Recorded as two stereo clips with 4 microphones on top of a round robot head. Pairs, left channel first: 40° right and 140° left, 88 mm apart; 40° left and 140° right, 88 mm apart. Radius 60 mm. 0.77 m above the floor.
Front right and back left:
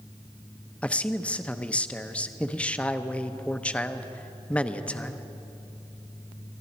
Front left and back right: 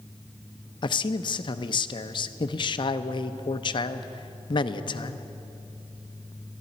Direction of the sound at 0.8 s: 35° left.